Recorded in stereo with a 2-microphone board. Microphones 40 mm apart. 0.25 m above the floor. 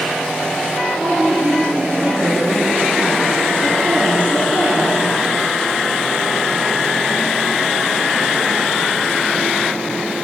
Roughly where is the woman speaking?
Right.